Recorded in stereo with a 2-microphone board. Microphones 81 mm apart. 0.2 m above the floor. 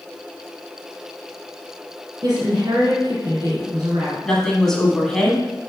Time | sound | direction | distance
2.2 | a woman speaking | 60° right (ahead or behind) | 2 m
4.2 | a woman speaking | 5° left (ahead or behind) | 1.5 m